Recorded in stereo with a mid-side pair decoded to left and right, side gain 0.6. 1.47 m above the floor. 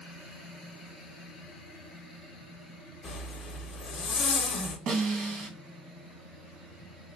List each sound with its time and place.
3.0 s a zipper: 45° left, 0.7 m
4.9 s a snare drum: 65° right, 1.1 m